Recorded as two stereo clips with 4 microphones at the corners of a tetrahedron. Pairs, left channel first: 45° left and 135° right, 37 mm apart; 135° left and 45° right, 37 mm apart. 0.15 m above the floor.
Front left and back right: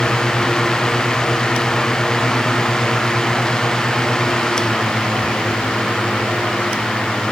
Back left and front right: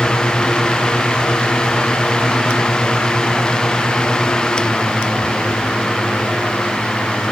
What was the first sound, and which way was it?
Only background noise.